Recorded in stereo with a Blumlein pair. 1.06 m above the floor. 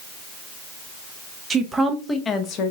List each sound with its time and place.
1.5 s a woman speaking: 15° right, 0.9 m; by 2.7 s 40° left, 0.8 m